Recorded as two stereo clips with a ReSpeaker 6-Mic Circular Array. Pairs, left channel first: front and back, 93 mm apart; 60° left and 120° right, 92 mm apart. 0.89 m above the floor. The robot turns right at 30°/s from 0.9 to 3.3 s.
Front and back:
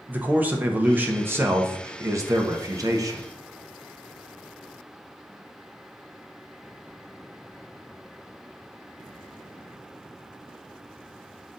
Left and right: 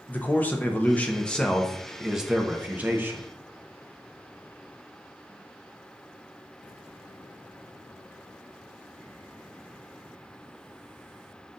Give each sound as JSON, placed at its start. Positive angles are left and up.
{"t": 0.1, "sound": "a man speaking", "azimuth_deg": 120, "distance_m": 0.6}